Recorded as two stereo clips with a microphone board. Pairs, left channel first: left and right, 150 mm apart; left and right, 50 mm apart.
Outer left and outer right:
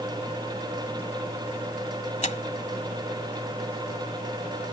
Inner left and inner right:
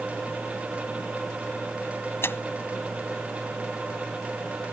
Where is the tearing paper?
55° left (ahead or behind).